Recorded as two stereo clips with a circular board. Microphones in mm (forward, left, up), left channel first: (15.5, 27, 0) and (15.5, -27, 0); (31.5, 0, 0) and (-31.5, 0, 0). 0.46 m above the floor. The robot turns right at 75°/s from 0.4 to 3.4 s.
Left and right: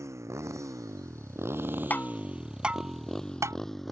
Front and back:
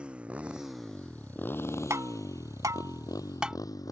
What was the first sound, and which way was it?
A motorcycle, 110° right.